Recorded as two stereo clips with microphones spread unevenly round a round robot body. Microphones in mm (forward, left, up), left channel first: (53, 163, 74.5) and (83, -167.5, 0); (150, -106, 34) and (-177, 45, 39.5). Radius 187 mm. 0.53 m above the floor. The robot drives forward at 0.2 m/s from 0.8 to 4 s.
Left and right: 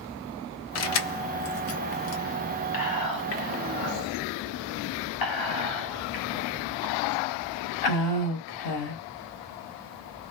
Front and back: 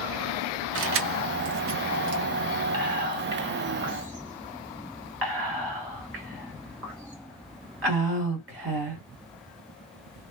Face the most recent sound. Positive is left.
turn(degrees=105)